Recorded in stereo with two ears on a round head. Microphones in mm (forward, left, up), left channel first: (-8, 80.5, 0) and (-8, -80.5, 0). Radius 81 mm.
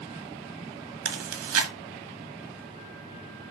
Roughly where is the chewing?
Right.